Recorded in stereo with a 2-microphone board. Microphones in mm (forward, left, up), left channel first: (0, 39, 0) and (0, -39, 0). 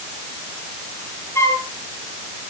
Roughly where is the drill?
I don't hear a drill.